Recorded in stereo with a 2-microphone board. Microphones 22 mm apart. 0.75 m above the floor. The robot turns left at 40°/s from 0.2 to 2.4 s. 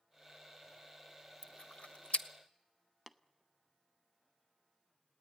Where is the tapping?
10° left (ahead or behind), 0.6 m.